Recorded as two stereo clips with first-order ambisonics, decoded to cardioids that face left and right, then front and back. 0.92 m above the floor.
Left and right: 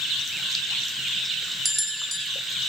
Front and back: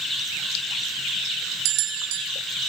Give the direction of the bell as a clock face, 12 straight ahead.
6 o'clock.